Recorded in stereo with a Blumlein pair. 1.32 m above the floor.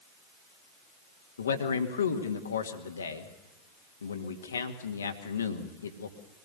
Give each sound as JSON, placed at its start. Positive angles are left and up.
{"t": 1.4, "sound": "a man speaking", "azimuth_deg": 70, "distance_m": 2.0}